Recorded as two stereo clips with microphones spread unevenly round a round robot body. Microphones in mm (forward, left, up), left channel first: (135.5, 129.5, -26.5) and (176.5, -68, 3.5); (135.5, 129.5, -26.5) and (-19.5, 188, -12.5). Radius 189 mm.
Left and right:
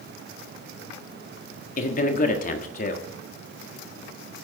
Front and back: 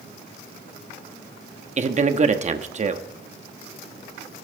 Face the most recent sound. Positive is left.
turn(degrees=125)